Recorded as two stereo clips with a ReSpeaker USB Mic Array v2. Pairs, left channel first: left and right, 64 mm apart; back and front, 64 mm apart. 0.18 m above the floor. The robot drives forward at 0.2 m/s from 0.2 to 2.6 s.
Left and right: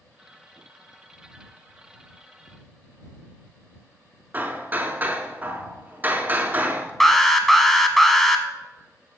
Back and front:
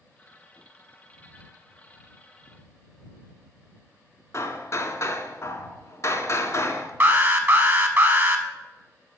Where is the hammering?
150° right, 0.5 m.